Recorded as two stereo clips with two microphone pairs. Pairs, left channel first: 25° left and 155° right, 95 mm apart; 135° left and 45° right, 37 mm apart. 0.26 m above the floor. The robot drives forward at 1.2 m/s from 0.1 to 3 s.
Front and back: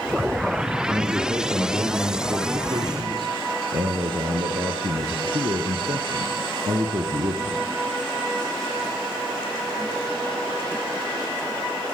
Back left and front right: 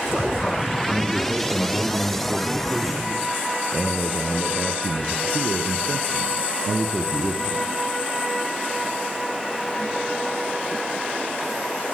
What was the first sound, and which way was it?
A man speaking, 100° right.